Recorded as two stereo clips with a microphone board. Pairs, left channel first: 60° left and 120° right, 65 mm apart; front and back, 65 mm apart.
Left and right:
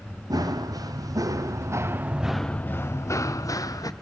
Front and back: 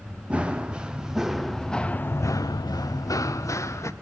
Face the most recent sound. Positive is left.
turn(degrees=35)